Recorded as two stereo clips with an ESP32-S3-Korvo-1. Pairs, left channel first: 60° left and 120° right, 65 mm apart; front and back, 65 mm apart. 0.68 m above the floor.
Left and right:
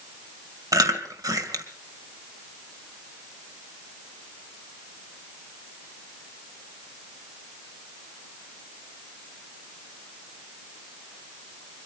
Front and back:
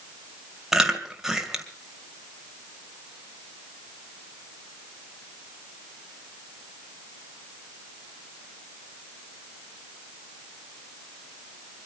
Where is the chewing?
100° right, 2 m.